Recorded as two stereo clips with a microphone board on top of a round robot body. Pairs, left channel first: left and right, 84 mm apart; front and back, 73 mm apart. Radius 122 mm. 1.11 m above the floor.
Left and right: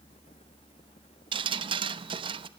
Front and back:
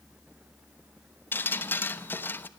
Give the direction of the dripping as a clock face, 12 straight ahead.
2 o'clock.